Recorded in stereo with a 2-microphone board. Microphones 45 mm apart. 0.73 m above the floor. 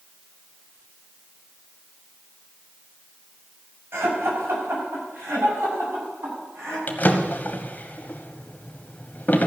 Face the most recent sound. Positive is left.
turn(degrees=40)  # may be behind; listen again after turning